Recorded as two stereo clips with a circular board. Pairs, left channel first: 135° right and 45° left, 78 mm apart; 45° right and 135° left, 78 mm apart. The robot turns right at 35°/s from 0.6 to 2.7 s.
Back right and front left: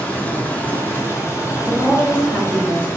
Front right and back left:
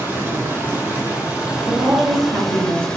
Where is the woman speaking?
130° left, 1.4 m; by 2.9 s 165° left, 1.4 m.